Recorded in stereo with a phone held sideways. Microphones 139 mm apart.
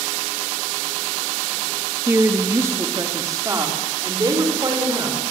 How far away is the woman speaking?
About 2.0 m.